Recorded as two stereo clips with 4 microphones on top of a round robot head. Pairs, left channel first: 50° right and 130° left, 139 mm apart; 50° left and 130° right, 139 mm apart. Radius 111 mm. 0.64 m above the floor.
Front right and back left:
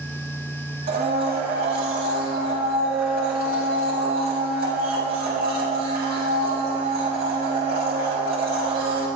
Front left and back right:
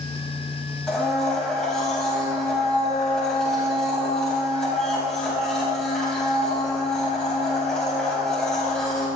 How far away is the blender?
About 4.5 m.